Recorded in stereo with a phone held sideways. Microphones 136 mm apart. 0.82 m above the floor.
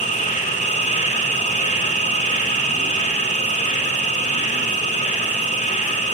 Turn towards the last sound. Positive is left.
turn(degrees=60)  # may be behind; listen again after turning